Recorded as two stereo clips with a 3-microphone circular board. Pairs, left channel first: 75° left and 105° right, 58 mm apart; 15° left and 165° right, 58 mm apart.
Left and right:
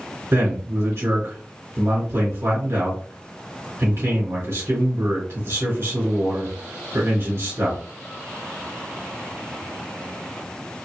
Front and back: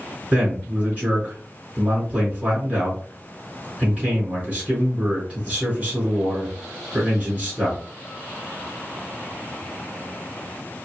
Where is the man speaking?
110° right, 2.5 m.